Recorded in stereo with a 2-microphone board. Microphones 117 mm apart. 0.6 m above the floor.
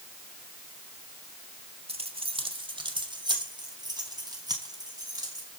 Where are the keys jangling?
55° right (ahead or behind), 1.5 m; by 5.5 s 30° right (ahead or behind), 6 m.